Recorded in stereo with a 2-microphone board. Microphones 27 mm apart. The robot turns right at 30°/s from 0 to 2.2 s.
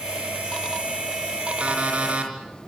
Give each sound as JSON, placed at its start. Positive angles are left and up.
{"t": 1.6, "sound": "an alarm clock", "side_deg": -55, "distance_m": 5.0}